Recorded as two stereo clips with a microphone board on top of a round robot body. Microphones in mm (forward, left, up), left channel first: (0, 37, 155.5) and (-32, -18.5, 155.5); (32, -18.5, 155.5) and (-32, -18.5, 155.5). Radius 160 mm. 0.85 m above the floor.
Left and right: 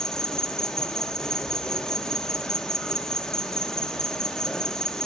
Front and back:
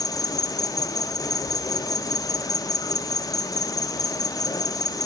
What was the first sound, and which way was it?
An insect, 20° right.